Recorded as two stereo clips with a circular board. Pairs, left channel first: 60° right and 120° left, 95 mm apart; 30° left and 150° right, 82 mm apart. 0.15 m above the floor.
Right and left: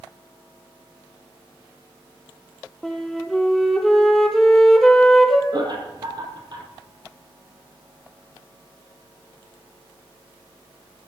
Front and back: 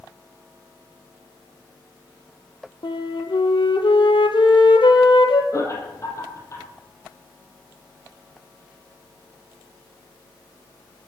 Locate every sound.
2.8 s a flute: 25° left, 1.3 m
5.5 s laughter: 80° left, 4.5 m